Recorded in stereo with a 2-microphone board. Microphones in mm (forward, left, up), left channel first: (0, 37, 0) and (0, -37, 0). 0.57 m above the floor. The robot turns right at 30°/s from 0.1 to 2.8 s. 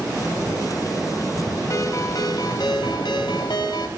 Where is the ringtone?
45° left, 2.5 m; by 3.9 s 75° left, 2.5 m.